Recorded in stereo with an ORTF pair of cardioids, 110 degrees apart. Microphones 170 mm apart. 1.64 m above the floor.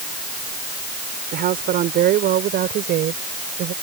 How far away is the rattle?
I don't hear a rattle.